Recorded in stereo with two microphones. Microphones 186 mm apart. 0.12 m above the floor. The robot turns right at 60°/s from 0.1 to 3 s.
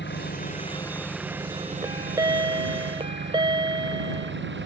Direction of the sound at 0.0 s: 115° left.